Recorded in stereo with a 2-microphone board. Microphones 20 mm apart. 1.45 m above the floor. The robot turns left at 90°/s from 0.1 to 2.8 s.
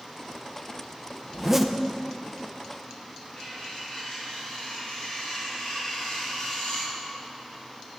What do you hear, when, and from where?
1.3 s a zipper: 145° right, 0.6 m; by 1.8 s 175° left, 0.6 m
3.4 s cutlery clinking: 35° left (ahead or behind), 4 m